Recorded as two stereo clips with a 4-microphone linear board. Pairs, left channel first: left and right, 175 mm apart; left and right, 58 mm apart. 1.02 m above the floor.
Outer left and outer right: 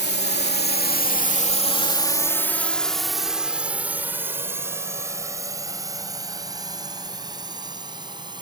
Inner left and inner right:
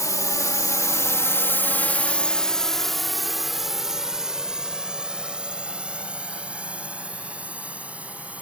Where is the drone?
70° left (ahead or behind); by 8.4 s 25° right (ahead or behind).